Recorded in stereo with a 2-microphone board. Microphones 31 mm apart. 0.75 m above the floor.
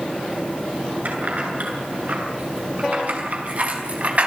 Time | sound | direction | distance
1.1 | keys jangling | 55° right (ahead or behind) | 8.5 m